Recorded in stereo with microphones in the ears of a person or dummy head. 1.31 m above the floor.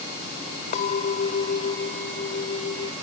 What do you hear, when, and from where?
0.7 s a clink: 45° left (ahead or behind)